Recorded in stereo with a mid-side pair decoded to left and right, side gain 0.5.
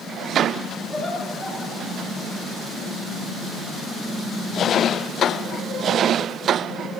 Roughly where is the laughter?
Ahead.